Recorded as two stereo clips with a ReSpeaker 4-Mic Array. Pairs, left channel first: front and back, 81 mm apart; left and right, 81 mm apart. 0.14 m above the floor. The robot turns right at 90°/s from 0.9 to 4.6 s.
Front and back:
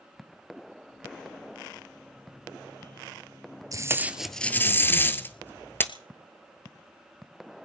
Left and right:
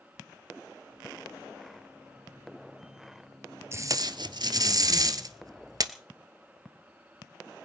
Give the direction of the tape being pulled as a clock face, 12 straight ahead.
5 o'clock.